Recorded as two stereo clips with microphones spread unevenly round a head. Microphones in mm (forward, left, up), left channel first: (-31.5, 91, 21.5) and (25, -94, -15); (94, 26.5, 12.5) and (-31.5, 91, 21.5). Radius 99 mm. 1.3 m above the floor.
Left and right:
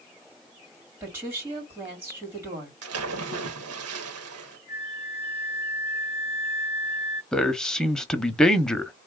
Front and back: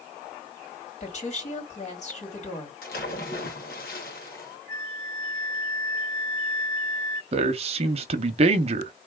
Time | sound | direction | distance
1.0 | a woman speaking | 5° left | 3.5 m
2.8 | a splash | 70° right | 1.1 m
4.7 | a flute | 50° left | 2.5 m
7.3 | a man speaking | 160° right | 0.7 m